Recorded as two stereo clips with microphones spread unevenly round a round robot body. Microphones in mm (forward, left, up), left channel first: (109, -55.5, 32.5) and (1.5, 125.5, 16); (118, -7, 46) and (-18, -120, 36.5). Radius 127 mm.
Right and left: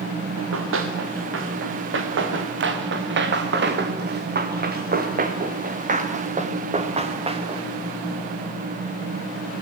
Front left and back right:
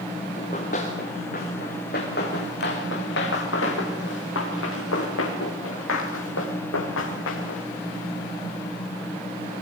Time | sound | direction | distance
0.4 | running footsteps | 105° left | 5.5 m